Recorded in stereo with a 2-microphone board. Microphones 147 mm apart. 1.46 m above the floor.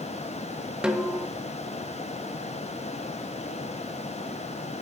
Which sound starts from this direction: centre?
A snare drum, at 0.8 s.